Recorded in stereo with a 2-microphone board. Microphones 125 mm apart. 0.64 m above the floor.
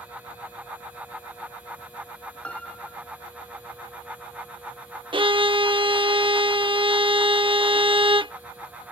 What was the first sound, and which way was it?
A piano, 10° left (ahead or behind).